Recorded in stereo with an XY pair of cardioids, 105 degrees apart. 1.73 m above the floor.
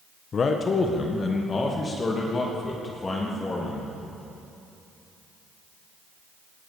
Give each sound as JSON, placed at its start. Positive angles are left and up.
{"t": 0.3, "sound": "a man speaking", "azimuth_deg": 45, "distance_m": 1.6}